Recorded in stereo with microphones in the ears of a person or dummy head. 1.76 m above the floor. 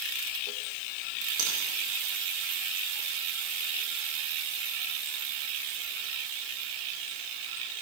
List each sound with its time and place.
1.4 s a finger snap: 70° right (ahead or behind), 2.5 m